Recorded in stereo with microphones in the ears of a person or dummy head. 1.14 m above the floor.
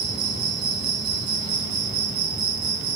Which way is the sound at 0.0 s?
50° right (ahead or behind).